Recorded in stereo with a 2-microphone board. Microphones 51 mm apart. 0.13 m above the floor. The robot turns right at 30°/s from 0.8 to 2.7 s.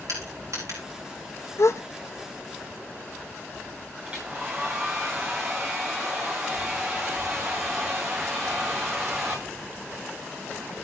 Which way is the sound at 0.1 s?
80° right.